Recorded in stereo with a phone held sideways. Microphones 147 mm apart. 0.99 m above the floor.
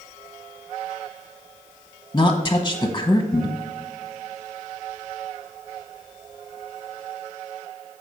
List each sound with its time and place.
2.1 s a woman speaking: 20° left (ahead or behind), 0.7 m